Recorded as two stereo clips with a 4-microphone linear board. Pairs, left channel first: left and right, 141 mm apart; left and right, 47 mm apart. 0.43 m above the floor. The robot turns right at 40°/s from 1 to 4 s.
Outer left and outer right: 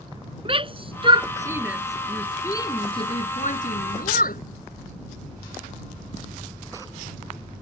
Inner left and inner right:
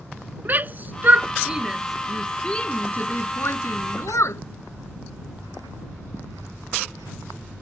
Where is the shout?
40° right (ahead or behind); by 4.4 s 75° left (ahead or behind).